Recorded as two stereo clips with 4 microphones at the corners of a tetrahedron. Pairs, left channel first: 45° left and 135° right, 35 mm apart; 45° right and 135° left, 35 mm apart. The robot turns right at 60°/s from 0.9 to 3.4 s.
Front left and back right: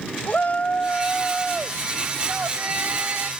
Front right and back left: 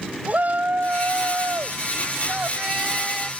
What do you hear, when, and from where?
0.3 s a shout: 95° left; by 3.3 s 120° right